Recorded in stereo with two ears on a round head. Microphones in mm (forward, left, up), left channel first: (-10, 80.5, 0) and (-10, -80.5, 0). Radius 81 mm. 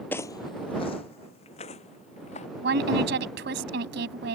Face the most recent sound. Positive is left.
turn(degrees=-70)  # may be behind; listen again after turning